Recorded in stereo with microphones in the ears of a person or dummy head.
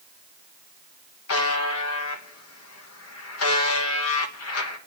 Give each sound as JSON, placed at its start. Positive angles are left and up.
{"t": 1.3, "sound": "a buzzer", "side_deg": 85, "distance_m": 1.1}